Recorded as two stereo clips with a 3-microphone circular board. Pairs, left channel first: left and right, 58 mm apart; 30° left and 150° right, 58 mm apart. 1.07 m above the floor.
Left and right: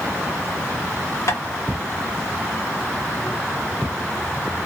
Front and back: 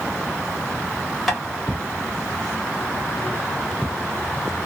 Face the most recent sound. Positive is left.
turn(degrees=120)